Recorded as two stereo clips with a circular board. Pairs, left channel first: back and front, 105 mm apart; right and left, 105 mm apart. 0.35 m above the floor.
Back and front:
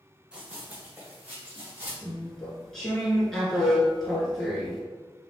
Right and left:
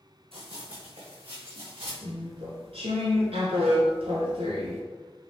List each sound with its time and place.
0.3 s running footsteps: 80° left, 1.4 m; by 1.9 s 70° left, 3.5 m
2.0 s chewing: 95° left, 1.4 m